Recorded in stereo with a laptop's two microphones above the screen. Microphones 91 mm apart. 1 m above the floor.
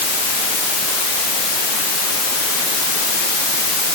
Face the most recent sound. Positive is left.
No sound to turn to.